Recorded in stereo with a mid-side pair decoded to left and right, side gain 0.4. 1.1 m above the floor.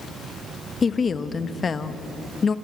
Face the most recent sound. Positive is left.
turn(degrees=45)